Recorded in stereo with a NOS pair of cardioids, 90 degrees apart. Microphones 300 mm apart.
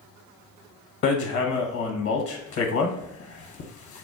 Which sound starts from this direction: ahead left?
Hammering, at 1.0 s.